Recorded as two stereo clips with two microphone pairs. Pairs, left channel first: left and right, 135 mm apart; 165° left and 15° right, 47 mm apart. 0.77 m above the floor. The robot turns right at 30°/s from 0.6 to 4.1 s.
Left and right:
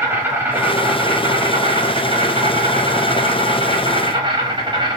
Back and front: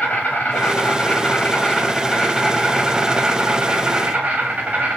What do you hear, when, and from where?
0.0 s an insect: 160° right, 1.2 m; by 5.0 s 55° right, 1.2 m